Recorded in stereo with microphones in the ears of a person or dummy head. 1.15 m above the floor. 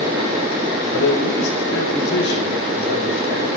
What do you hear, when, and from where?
0.9 s a man speaking: 80° left, 5 m